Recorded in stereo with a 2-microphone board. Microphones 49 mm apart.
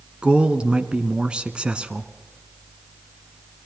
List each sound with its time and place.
0.2 s a man speaking: 20° right (ahead or behind), 1.1 m